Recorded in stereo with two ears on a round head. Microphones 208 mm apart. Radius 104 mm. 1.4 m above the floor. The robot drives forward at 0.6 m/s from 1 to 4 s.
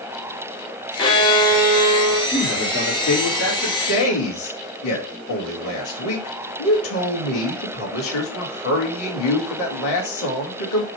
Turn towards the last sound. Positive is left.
turn(degrees=60)  # may be behind; listen again after turning